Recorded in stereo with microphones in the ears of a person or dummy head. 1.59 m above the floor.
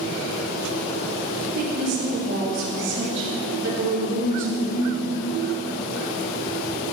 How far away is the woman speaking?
About 4 m.